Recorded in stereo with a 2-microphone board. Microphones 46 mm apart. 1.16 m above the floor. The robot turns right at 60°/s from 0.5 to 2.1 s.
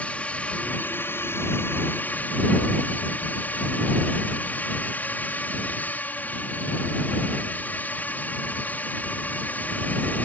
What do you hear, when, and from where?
0.0 s a drone: 35° left; by 10.2 s 130° left